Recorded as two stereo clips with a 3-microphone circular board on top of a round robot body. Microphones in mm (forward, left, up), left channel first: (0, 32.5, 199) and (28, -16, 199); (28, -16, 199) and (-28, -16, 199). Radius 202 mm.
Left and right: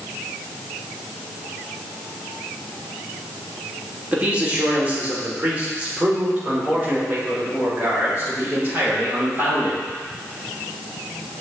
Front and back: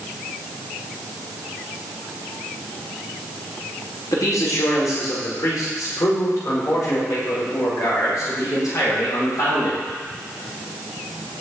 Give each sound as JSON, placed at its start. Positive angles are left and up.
{"t": 4.1, "sound": "a man speaking", "azimuth_deg": 5, "distance_m": 3.0}